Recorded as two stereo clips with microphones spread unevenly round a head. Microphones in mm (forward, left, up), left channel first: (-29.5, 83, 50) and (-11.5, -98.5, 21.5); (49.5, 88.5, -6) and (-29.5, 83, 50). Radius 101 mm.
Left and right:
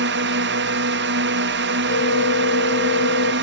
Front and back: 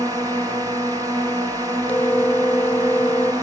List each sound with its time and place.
0.0 s a drone: 100° right
1.9 s a phone ringing: 85° left